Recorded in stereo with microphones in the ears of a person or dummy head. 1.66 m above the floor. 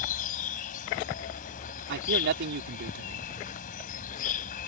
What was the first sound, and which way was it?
An insect, 50° left (ahead or behind).